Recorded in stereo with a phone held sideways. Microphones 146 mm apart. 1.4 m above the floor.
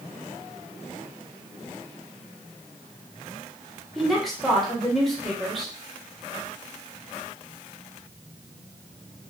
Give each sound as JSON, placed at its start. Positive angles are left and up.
{"t": 4.0, "sound": "a woman speaking", "side_deg": 0, "distance_m": 1.0}